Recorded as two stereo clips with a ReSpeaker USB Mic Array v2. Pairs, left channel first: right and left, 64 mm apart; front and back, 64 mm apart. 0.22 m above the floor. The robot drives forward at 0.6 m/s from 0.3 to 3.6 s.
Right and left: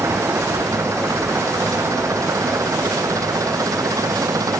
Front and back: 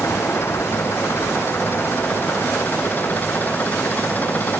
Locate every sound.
0.0 s an engine running: 50° left; by 4.6 s 60° left